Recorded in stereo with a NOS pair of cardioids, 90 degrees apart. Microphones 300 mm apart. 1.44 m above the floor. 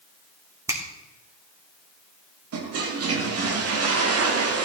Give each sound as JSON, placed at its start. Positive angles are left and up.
{"t": 0.7, "sound": "a finger snap", "azimuth_deg": -10, "distance_m": 3.0}
{"t": 2.5, "sound": "a toilet flushing", "azimuth_deg": -60, "distance_m": 2.0}